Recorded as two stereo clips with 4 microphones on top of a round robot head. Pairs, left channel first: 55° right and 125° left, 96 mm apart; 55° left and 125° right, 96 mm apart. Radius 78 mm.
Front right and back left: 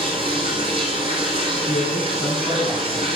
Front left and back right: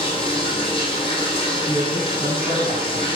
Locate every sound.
0.0 s running water: 90° left, 3 m
1.7 s a man speaking: 50° left, 5 m